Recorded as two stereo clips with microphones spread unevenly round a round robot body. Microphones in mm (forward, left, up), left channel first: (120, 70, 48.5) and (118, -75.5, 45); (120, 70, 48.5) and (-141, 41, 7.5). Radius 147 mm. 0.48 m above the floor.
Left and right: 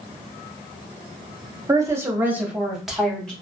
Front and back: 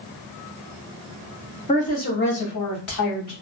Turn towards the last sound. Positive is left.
turn(degrees=0)